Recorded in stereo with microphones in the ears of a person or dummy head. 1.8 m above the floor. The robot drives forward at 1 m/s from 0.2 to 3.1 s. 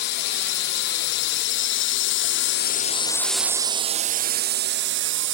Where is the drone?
60° left (ahead or behind); by 5.3 s 65° right (ahead or behind).